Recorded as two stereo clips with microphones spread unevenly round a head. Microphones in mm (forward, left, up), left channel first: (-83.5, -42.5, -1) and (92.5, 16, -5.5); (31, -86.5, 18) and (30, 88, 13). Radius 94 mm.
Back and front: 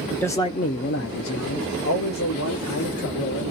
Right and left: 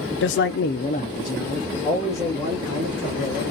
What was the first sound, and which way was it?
A man speaking, 80° right.